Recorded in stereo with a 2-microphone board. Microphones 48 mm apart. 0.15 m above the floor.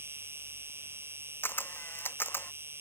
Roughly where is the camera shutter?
Left.